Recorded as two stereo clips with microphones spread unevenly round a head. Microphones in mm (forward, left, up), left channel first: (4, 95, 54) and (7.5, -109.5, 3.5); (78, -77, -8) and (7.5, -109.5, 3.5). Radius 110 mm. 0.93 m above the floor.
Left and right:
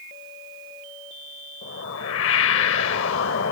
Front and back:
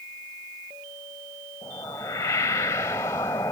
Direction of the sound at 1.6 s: 95° left.